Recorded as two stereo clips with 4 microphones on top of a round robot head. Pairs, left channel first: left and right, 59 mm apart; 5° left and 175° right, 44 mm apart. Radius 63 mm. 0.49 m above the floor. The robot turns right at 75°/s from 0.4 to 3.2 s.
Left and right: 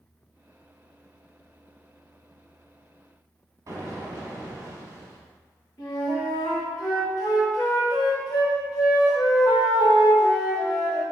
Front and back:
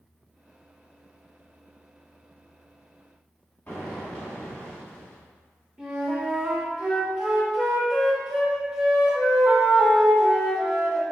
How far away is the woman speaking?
No woman speaking in this recording.